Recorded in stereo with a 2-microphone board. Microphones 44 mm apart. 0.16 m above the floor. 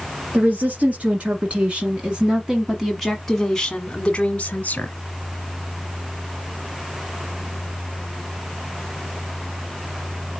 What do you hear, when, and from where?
0.3 s a woman speaking: 40° right (ahead or behind), 2.0 m; by 4.9 s 40° left (ahead or behind), 1.4 m